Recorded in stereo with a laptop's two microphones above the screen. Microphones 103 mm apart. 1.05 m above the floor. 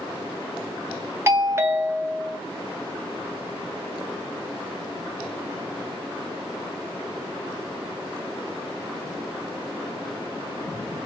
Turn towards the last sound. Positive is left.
turn(degrees=-25)  # may be behind; listen again after turning